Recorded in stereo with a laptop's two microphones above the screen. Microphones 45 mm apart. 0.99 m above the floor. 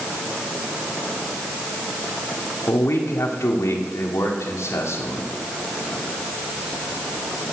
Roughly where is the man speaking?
Left.